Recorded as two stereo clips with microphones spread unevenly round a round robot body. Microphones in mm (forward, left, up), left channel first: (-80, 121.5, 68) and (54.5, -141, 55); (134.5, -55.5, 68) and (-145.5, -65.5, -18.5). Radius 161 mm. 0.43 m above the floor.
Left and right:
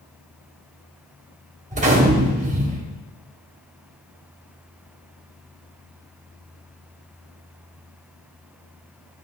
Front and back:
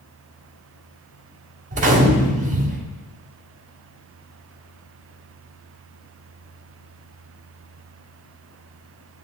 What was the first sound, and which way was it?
A gunshot, 125° right.